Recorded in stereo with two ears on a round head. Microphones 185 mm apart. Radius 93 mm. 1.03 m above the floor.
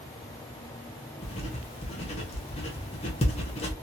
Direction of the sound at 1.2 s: 30° left (ahead or behind).